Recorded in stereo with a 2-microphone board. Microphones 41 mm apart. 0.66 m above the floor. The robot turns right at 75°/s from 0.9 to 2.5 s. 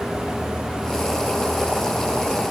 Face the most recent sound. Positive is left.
No sound to turn to.